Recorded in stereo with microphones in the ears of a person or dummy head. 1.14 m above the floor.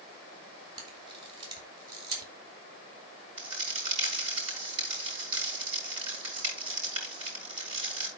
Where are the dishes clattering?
No dishes clattering in this recording.